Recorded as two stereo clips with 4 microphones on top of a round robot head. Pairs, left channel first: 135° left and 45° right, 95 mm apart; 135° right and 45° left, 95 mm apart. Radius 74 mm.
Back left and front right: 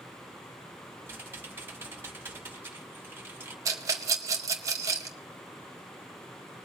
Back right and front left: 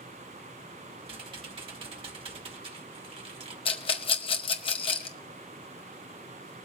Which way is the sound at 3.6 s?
105° right.